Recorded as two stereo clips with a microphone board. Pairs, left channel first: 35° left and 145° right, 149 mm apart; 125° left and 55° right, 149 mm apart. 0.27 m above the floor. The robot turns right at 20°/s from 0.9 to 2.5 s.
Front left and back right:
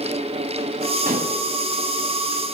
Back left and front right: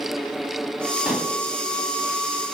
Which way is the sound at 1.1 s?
140° right.